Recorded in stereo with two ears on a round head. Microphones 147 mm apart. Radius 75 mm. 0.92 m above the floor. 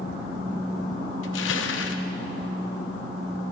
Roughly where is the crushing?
Left.